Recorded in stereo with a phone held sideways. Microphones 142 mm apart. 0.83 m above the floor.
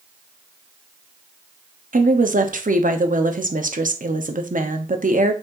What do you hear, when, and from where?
1.9 s a woman speaking: 70° right (ahead or behind), 1.0 m